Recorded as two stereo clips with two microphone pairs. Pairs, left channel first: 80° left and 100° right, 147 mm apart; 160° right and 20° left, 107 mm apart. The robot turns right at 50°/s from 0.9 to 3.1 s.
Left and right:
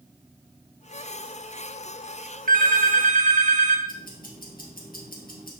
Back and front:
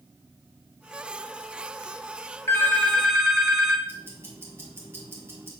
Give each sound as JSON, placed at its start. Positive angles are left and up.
{"t": 2.5, "sound": "a phone ringing", "azimuth_deg": -95, "distance_m": 1.0}
{"t": 3.9, "sound": "ticking", "azimuth_deg": 90, "distance_m": 1.8}